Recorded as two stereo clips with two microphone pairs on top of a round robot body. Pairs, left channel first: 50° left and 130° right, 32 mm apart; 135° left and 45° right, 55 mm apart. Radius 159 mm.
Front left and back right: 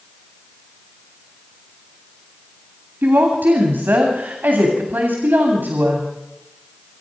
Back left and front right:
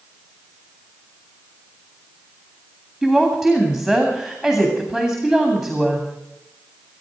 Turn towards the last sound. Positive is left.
turn(degrees=-135)